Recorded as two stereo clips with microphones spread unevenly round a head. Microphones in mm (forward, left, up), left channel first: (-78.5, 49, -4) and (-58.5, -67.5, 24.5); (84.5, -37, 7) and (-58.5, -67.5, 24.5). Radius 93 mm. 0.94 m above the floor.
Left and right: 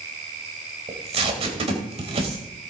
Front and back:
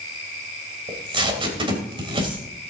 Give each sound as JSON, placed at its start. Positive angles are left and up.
{"t": 0.9, "sound": "tape being pulled", "azimuth_deg": -115, "distance_m": 3.0}